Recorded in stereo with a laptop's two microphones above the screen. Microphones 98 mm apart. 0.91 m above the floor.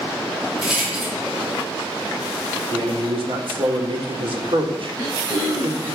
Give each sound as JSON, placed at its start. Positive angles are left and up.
{"t": 0.6, "sound": "a rattle", "side_deg": -10, "distance_m": 2.0}
{"t": 2.7, "sound": "a man speaking", "side_deg": -55, "distance_m": 1.5}
{"t": 4.9, "sound": "throat clearing", "side_deg": -40, "distance_m": 3.0}